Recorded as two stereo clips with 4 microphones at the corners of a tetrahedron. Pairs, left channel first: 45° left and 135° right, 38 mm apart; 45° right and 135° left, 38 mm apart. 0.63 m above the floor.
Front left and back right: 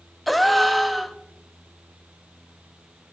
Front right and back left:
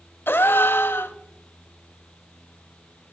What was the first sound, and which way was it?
A gasp, 45° right.